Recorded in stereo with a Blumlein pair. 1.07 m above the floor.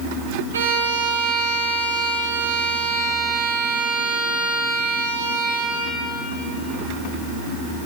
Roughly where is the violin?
Ahead right.